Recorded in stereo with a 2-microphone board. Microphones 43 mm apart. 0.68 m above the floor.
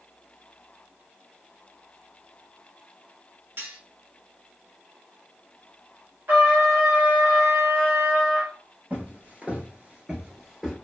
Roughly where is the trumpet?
Right.